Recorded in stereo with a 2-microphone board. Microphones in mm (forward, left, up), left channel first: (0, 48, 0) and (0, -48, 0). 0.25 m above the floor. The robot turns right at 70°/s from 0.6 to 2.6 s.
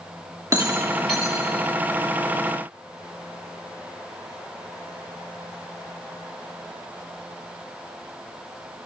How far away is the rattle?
About 7 m.